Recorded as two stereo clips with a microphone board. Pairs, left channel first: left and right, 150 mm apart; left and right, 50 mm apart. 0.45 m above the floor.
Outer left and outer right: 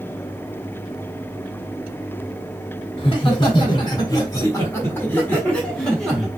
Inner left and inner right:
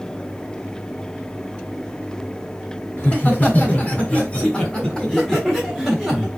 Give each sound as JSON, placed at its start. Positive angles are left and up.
{"t": 3.0, "sound": "laughter", "side_deg": 35, "distance_m": 1.7}